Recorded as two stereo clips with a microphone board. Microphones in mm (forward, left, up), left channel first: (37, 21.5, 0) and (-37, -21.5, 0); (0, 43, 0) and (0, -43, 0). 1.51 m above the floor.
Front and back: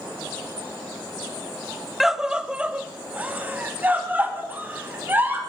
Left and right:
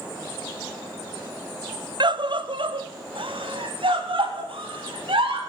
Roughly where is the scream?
Ahead right.